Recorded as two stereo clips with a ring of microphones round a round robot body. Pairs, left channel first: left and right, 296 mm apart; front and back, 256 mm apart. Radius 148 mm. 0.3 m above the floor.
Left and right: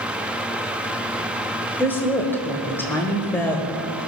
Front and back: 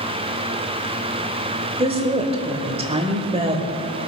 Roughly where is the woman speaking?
Behind.